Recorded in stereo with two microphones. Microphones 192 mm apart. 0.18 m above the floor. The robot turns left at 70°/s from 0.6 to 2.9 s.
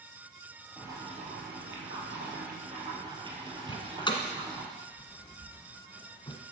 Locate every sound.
0.8 s boiling: 5° right, 3.5 m; by 4.7 s 155° right, 3.5 m
3.7 s a door slam: 25° left (ahead or behind), 1.4 m